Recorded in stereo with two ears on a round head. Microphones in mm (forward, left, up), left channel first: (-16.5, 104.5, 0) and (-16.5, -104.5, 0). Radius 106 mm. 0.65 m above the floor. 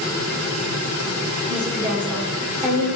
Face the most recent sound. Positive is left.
turn(degrees=15)  # may be behind; listen again after turning